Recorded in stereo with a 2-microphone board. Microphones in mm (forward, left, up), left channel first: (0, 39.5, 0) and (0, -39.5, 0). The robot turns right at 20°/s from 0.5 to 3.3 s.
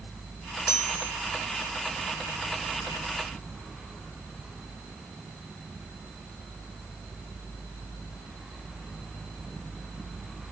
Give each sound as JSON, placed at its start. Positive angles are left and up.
{"t": 0.7, "sound": "a chime", "side_deg": 40, "distance_m": 3.5}